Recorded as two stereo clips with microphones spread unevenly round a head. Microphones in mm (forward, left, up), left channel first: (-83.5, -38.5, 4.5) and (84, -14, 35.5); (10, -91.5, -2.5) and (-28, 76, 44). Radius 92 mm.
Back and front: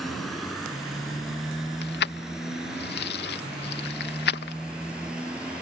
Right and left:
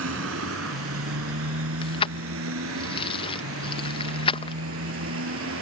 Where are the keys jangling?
145° right.